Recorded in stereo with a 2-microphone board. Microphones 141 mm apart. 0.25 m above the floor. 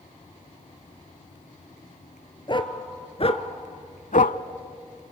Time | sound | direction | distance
2.5 | a dog barking | 35° left (ahead or behind) | 1.3 m